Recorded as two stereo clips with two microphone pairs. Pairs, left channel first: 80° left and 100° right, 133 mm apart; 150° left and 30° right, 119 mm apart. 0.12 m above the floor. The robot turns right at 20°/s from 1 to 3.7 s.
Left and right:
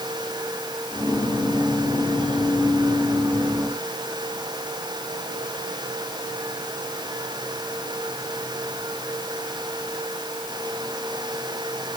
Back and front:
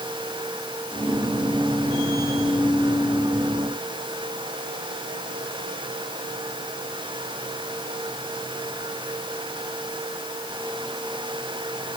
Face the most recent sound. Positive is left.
No sound to turn to.